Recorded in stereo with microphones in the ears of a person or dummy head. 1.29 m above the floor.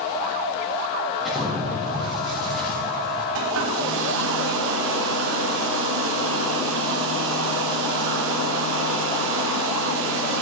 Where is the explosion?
Centre (ahead or behind), 4 m.